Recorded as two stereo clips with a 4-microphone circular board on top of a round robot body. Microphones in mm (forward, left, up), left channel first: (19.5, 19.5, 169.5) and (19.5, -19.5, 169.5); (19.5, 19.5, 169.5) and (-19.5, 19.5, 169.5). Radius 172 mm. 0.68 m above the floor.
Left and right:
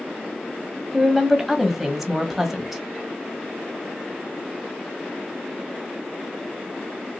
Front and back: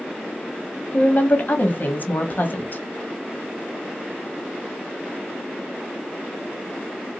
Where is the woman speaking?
5° right, 1.5 m.